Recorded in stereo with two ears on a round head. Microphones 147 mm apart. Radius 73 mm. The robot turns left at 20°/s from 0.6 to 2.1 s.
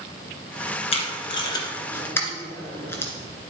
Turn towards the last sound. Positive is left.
turn(degrees=15)  # may be behind; listen again after turning